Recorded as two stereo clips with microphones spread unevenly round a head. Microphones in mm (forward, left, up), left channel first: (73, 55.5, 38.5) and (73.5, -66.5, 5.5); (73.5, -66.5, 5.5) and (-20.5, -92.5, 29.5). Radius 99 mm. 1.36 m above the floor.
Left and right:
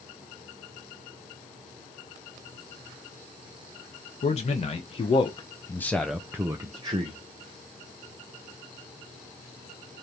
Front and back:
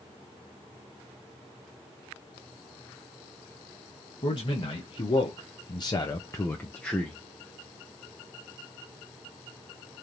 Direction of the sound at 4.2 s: 55° left.